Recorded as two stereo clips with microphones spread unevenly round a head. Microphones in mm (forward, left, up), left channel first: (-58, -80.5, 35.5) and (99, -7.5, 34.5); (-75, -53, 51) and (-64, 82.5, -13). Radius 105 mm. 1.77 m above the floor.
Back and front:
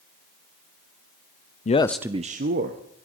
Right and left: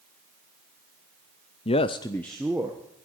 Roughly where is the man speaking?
Behind right.